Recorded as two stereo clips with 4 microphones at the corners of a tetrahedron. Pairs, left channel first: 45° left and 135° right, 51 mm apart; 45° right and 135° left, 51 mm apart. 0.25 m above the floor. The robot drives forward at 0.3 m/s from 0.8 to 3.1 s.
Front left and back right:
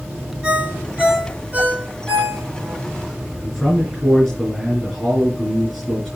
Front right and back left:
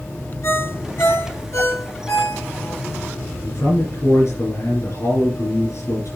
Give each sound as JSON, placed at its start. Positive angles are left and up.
{"t": 0.4, "sound": "a ringtone", "azimuth_deg": -65, "distance_m": 3.0}
{"t": 3.4, "sound": "a man speaking", "azimuth_deg": -50, "distance_m": 3.5}